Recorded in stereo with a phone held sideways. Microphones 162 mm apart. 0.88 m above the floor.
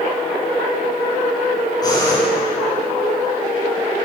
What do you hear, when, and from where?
1.8 s breathing: 25° left (ahead or behind), 5 m